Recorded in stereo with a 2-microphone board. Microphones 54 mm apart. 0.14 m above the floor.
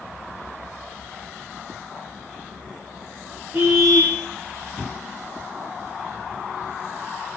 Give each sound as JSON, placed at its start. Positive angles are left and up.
{"t": 3.5, "sound": "a car horn", "side_deg": -40, "distance_m": 5.0}